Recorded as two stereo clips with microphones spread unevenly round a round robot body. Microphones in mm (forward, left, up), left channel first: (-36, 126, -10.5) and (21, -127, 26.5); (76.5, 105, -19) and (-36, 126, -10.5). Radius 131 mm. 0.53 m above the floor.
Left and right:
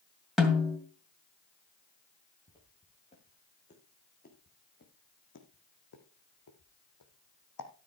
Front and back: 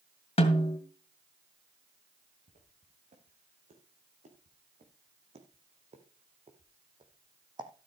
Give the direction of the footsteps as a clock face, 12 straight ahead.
6 o'clock.